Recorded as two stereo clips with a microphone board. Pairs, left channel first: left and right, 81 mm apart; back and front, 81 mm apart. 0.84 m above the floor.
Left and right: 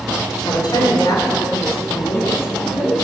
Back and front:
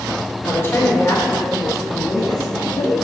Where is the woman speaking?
120° left, 3 m; by 3.0 s 155° left, 2 m.